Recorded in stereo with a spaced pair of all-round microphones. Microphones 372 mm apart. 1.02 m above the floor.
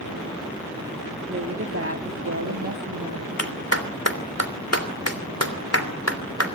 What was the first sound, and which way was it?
A woman speaking, 30° right (ahead or behind).